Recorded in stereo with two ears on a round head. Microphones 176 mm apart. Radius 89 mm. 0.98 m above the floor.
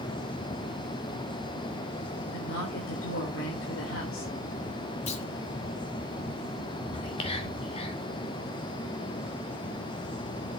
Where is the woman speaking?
65° left (ahead or behind), 3.5 m.